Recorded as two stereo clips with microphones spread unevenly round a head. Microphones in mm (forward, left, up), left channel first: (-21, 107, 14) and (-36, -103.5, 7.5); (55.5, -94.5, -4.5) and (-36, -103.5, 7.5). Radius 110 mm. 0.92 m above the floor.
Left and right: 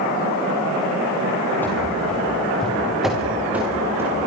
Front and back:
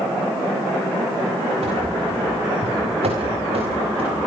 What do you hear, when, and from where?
1.6 s running footsteps: 165° left, 7.5 m; by 4.3 s 170° right, 5.5 m